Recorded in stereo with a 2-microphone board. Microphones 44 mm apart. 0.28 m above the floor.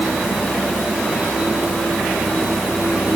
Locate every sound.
Only background noise.